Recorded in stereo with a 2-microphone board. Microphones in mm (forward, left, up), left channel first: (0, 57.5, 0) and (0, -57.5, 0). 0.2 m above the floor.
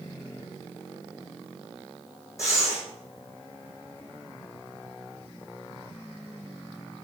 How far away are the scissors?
No scissors in this recording.